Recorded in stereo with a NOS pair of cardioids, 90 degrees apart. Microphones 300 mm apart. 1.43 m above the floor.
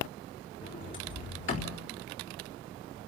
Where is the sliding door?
40° left, 4 m.